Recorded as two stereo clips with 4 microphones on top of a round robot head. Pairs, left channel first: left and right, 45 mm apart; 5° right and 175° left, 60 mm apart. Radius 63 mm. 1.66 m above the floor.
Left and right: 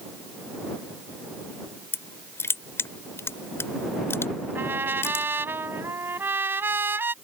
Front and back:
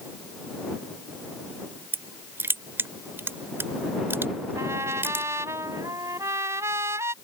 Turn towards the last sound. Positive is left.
turn(degrees=-130)